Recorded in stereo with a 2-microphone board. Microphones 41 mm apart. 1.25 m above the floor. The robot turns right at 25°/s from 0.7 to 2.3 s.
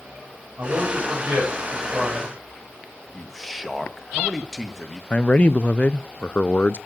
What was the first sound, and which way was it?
A man speaking, 65° right.